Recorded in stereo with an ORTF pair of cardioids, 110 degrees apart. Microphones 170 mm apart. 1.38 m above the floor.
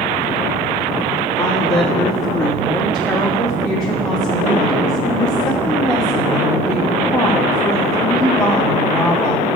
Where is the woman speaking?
20° left, 3.5 m.